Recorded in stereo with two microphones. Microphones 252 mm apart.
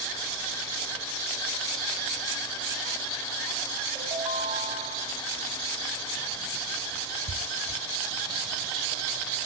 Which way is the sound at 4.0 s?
20° right (ahead or behind).